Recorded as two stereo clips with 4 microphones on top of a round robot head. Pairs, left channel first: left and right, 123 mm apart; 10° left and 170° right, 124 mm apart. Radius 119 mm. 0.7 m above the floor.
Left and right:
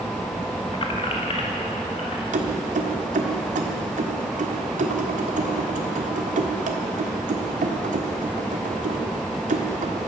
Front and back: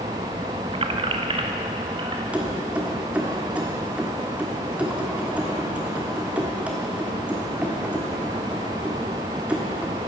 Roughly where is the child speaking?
I don't hear a child speaking.